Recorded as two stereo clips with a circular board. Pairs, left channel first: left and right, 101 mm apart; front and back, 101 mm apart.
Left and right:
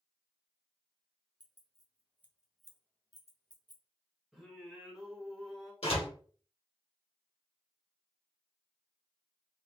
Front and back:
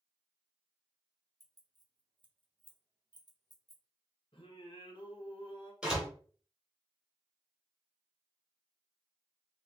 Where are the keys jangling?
125° right, 1.0 m; by 3.8 s 125° left, 0.9 m.